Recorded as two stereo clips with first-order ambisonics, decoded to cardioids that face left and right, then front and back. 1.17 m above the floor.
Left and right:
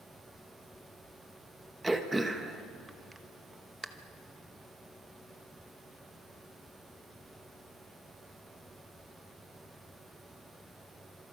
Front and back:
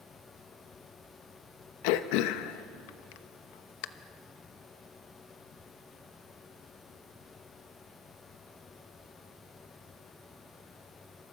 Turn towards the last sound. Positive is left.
turn(degrees=-5)